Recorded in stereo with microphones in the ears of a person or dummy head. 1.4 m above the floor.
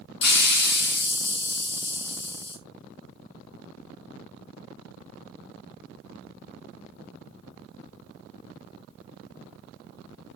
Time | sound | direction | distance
0.2 | a hiss | 60° left (ahead or behind) | 1.4 m